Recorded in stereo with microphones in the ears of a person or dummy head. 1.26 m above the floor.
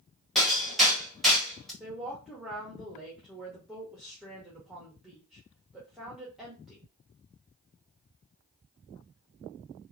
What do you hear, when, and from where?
0.3 s hammering: 10° left (ahead or behind), 1.0 m
1.8 s a woman speaking: 5° left (ahead or behind), 0.8 m